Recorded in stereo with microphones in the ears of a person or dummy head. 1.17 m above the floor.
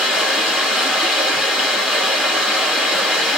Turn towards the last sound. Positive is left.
turn(degrees=-5)  # may be behind; listen again after turning